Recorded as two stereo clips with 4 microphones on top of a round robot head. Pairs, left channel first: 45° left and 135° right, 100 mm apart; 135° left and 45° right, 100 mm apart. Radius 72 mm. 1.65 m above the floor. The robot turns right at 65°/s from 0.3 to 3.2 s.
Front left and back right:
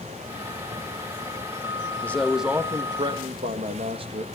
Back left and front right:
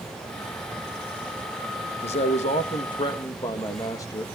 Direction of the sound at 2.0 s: 115° left.